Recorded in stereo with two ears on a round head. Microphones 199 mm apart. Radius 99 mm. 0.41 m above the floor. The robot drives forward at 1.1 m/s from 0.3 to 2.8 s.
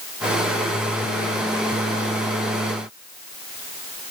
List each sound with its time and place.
Only background noise.